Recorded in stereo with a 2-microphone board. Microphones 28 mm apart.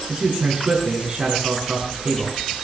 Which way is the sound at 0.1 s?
40° right (ahead or behind).